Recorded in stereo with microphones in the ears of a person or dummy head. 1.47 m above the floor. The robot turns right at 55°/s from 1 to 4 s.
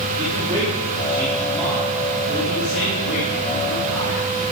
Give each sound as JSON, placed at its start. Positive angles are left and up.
{"t": 0.2, "sound": "a man speaking", "azimuth_deg": -30, "distance_m": 4.0}